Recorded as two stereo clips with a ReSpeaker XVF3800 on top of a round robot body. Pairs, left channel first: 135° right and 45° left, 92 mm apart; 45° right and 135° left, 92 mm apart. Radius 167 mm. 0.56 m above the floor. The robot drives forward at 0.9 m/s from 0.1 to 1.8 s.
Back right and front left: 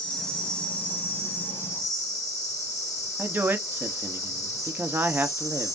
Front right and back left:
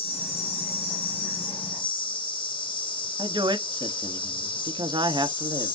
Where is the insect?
55° right, 5 m; by 5.8 s 70° right, 4 m.